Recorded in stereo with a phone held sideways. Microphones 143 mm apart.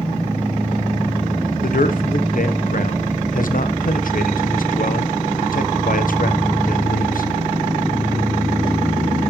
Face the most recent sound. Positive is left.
turn(degrees=70)  # may be behind; listen again after turning